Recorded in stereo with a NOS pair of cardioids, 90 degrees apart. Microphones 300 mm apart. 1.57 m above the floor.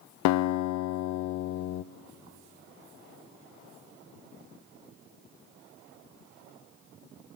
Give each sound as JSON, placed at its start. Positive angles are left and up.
{"t": 0.2, "sound": "a guitar", "azimuth_deg": 70, "distance_m": 0.5}